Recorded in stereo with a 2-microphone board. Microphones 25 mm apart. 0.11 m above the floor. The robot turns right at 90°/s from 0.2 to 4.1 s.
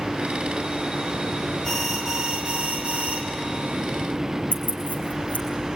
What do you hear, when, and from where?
1.6 s an alarm: 160° left, 3 m; by 3.2 s 60° right, 3 m
4.5 s keys jangling: 70° left (ahead or behind), 4 m